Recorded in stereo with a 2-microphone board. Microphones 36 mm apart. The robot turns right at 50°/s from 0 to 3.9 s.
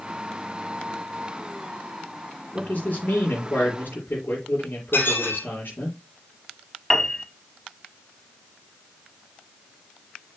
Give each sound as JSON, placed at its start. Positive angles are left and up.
{"t": 2.5, "sound": "a man speaking", "azimuth_deg": 35, "distance_m": 5.0}
{"t": 4.9, "sound": "dishes clattering", "side_deg": 75, "distance_m": 4.5}
{"t": 6.9, "sound": "a piano", "side_deg": 15, "distance_m": 1.1}